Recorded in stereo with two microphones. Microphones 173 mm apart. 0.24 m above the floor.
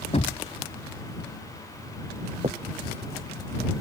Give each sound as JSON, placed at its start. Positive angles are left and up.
{"t": 0.1, "sound": "knocking", "side_deg": 40}
{"t": 2.4, "sound": "a finger snap", "side_deg": -40}